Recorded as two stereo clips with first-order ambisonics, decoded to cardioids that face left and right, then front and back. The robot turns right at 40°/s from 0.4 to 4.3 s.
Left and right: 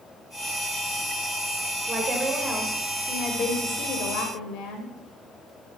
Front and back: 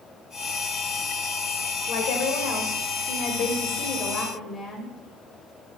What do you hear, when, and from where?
1.9 s a woman speaking: 30° right, 2 m; by 4.9 s 70° left, 2 m